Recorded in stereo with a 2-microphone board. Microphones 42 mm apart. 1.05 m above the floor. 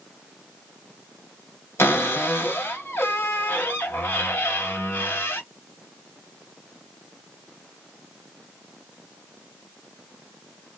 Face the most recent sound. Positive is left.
turn(degrees=70)  # may be behind; listen again after turning